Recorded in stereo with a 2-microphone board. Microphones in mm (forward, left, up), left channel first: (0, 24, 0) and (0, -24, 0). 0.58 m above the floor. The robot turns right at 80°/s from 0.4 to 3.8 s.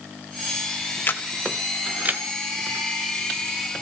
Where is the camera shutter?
45° left (ahead or behind), 1.0 m; by 2.2 s 45° right (ahead or behind), 1.0 m.